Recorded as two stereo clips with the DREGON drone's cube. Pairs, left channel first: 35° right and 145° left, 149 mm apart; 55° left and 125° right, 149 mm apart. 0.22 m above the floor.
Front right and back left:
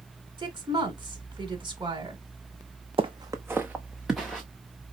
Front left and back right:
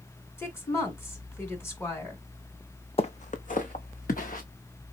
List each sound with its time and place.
0.4 s a woman speaking: 120° left, 1.5 m
3.0 s footsteps: 100° left, 0.6 m; by 4.4 s 55° left, 1.4 m